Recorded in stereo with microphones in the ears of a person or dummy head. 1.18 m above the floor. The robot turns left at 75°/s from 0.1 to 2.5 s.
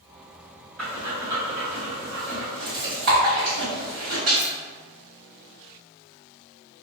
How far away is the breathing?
About 1.3 m.